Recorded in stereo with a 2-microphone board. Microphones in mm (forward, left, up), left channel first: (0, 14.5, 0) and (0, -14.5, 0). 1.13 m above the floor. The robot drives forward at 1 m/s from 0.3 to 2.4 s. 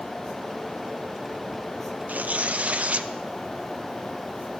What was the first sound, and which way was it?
Tearing paper, 75° right (ahead or behind).